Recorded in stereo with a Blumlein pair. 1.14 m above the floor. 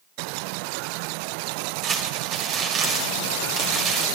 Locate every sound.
1.8 s crumpling: 30° right, 3 m